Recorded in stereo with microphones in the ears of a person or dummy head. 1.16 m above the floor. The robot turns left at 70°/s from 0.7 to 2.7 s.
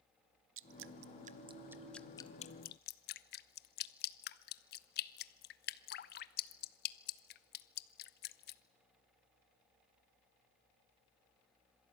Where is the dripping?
60° right (ahead or behind), 0.6 m; by 8.6 s 50° left (ahead or behind), 0.6 m.